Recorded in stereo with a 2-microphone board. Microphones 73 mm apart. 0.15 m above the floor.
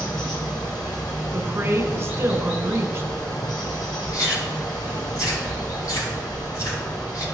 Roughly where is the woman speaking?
Right.